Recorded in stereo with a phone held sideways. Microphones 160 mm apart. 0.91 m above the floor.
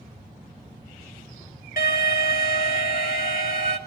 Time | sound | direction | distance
1.8 | an alarm | 65° left (ahead or behind) | 3 m